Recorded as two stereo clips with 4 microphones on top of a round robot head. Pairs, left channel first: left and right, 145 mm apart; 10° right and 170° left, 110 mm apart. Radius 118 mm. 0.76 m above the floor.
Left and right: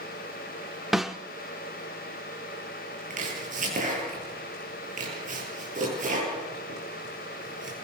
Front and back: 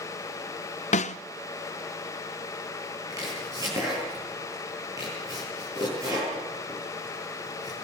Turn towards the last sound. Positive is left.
turn(degrees=-125)